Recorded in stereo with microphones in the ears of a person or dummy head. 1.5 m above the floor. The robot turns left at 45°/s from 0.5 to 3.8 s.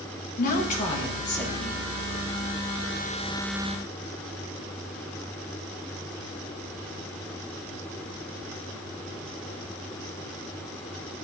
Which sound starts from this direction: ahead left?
A woman speaking, at 0.4 s.